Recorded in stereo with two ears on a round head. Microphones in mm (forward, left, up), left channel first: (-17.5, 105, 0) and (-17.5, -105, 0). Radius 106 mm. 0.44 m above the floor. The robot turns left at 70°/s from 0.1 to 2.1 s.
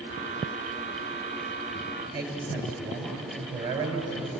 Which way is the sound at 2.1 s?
20° right (ahead or behind).